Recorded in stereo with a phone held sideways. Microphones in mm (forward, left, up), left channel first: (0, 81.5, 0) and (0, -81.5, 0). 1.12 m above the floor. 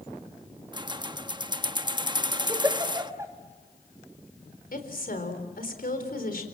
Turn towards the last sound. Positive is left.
turn(degrees=65)  # may be behind; listen again after turning